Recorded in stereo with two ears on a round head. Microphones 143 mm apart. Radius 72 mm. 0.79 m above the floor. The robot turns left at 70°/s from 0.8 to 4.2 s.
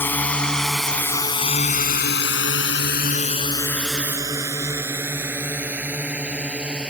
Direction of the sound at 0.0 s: 15° left (ahead or behind).